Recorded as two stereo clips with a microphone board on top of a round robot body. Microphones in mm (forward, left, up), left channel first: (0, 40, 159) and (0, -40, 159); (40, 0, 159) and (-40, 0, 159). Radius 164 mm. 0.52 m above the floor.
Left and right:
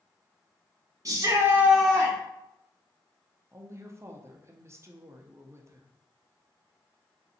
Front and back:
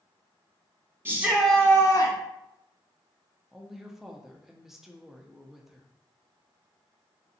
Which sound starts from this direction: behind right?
A shout, at 1.1 s.